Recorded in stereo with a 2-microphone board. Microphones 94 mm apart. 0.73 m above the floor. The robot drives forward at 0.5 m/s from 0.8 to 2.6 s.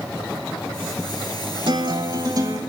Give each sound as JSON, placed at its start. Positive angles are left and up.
{"t": 1.7, "sound": "a guitar", "side_deg": -55, "distance_m": 1.1}